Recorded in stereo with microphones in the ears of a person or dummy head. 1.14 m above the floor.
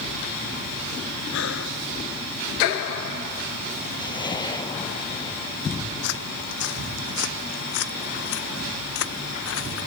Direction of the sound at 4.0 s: 25° left (ahead or behind).